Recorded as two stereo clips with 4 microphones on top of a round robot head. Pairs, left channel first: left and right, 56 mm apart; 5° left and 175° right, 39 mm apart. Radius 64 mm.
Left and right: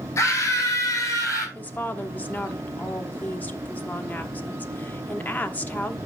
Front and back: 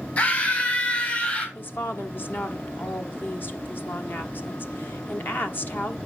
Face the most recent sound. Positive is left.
turn(degrees=30)